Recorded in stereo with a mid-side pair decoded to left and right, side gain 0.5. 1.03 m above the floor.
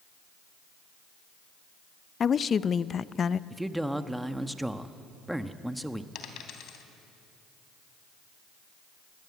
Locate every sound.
2.2 s a woman speaking: 40° left, 0.6 m
3.5 s a man speaking: 5° right, 1.2 m
6.2 s a dropped coin: 70° left, 3 m